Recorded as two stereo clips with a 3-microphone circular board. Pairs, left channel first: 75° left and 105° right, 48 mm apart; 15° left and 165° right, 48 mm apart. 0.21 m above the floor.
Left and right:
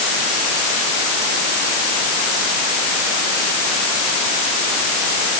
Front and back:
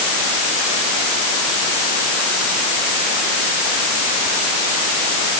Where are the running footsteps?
No running footsteps in this recording.